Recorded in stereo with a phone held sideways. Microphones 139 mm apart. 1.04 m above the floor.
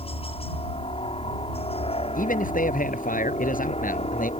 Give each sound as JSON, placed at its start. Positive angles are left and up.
{"t": 0.0, "sound": "a helicopter", "side_deg": 40}
{"t": 2.1, "sound": "a man speaking", "side_deg": 75}